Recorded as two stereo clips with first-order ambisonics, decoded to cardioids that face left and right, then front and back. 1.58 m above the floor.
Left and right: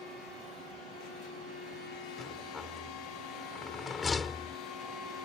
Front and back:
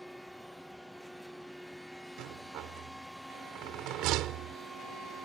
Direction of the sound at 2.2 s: 160° left.